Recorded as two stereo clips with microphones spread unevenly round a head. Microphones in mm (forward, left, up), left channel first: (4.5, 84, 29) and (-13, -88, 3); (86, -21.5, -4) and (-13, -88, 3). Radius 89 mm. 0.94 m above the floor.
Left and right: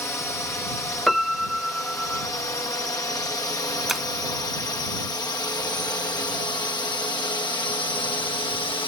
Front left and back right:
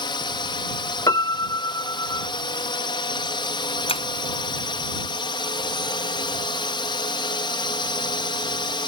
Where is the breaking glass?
5° right.